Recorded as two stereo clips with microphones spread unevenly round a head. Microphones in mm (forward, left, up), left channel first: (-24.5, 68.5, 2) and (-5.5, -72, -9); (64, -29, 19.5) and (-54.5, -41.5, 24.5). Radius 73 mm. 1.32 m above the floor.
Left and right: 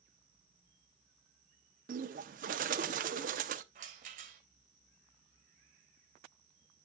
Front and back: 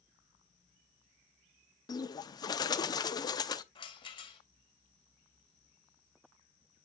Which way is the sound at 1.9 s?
50° right.